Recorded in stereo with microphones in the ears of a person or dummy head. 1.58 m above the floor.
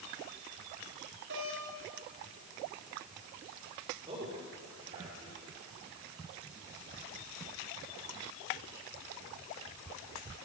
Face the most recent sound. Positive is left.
turn(degrees=-30)  # may be behind; listen again after turning